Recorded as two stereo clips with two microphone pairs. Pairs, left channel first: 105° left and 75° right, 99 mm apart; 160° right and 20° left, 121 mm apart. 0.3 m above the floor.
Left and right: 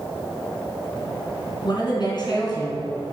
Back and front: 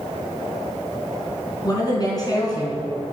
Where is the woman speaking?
145° left, 3 m.